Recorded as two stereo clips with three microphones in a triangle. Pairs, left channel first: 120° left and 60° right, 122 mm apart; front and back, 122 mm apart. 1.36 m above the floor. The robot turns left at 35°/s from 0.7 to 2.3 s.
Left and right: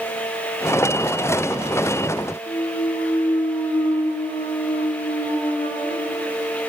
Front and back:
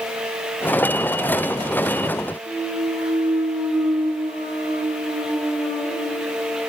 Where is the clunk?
155° left, 0.9 m.